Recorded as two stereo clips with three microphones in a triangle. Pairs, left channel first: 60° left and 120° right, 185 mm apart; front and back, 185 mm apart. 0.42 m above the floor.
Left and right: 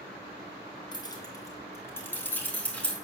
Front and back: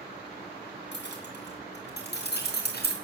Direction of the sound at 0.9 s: 5° right.